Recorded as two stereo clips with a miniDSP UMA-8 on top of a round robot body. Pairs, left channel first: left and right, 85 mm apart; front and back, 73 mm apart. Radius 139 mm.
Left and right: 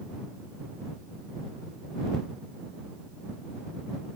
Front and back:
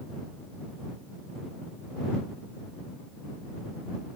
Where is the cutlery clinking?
I don't hear cutlery clinking.